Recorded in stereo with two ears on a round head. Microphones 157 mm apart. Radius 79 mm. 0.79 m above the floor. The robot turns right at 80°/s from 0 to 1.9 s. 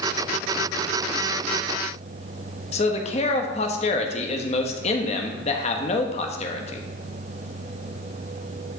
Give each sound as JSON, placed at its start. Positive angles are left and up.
{"t": 2.7, "sound": "a man speaking", "side_deg": 35, "distance_m": 1.2}